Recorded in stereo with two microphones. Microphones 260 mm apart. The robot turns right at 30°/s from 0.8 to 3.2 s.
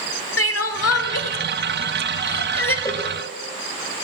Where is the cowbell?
15° left (ahead or behind), 1.1 m; by 3.1 s 20° left (ahead or behind), 1.1 m.